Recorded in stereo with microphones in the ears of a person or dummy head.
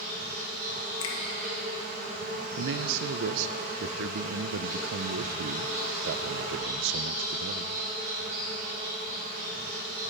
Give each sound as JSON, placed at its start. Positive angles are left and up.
{"t": 0.0, "sound": "an insect", "side_deg": -50, "distance_m": 4.0}
{"t": 1.0, "sound": "a finger snap", "side_deg": 75, "distance_m": 1.6}
{"t": 2.6, "sound": "a man speaking", "side_deg": -70, "distance_m": 0.5}